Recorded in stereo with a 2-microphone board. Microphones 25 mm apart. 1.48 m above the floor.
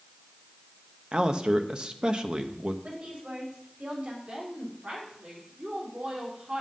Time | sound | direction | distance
1.1 | a man speaking | 45° right (ahead or behind) | 0.8 m
2.8 | a woman speaking | 65° right (ahead or behind) | 4 m
4.3 | a woman speaking | 80° right | 4 m